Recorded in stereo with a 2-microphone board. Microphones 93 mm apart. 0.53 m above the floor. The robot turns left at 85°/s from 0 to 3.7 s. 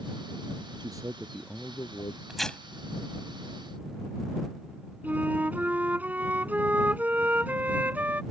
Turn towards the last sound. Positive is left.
turn(degrees=-20)  # may be behind; listen again after turning